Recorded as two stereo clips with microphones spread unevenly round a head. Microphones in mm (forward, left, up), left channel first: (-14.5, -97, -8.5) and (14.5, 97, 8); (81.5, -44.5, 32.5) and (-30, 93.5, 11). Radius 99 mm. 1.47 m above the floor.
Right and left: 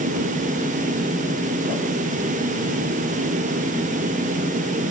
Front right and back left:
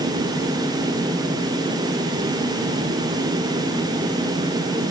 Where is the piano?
No piano in this recording.